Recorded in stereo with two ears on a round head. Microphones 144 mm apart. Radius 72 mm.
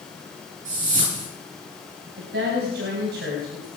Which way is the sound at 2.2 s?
65° right (ahead or behind).